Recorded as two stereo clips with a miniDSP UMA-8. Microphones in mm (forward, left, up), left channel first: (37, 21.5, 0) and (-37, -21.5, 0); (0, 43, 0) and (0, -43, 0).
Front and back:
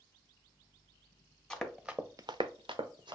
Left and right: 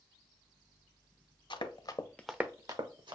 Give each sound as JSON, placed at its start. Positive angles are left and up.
{"t": 1.5, "sound": "running footsteps", "azimuth_deg": 115, "distance_m": 1.1}